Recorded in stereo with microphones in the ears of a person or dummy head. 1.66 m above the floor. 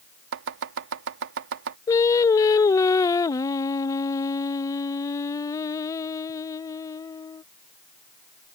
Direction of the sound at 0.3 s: 75° right (ahead or behind).